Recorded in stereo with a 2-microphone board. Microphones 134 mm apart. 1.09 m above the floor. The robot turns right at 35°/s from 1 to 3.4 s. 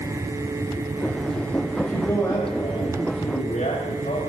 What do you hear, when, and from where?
1.8 s a man speaking: 5° right, 4.5 m; by 4.2 s 55° left, 4.5 m